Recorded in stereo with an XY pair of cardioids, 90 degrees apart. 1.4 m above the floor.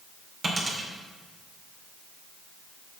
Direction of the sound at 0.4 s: 40° right.